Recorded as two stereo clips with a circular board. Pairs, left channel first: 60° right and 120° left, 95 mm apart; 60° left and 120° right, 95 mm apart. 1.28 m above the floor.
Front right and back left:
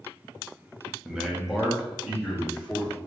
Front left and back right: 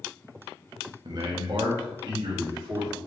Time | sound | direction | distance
1.1 | a man speaking | 160° right | 0.9 m